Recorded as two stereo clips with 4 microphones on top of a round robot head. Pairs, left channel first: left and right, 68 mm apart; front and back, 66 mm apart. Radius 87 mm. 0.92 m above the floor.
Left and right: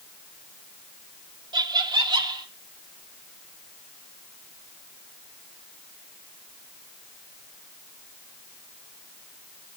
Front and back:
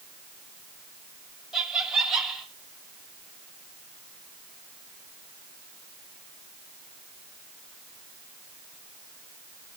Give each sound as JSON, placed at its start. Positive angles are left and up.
{"t": 1.5, "sound": "laughter", "azimuth_deg": -100, "distance_m": 3.0}